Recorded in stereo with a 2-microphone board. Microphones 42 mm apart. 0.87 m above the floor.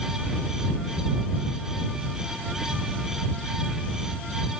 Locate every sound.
Only background noise.